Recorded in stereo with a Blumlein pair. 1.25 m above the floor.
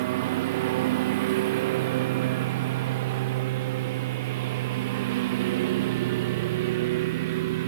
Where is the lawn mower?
50° right.